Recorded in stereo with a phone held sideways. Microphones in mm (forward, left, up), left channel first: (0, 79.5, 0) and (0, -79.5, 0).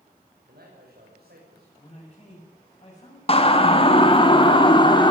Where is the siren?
40° left (ahead or behind), 2.5 m; by 5.1 s 30° left (ahead or behind), 4 m.